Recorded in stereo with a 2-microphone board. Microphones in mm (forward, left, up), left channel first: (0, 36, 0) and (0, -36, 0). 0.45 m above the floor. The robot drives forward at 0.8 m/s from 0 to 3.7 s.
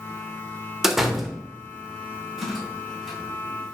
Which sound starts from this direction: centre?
A door slam, at 0.8 s.